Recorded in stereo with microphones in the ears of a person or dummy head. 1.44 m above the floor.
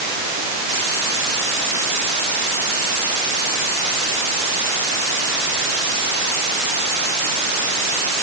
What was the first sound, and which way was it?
Only background noise.